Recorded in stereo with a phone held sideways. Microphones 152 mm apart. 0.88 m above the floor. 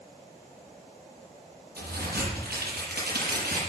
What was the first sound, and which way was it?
A crack, 80° right.